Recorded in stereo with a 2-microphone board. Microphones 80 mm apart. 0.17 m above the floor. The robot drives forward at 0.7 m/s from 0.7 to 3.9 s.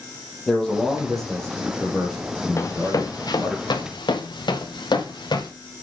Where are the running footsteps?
40° left (ahead or behind), 1.6 m; by 5.5 s 70° left (ahead or behind), 4 m.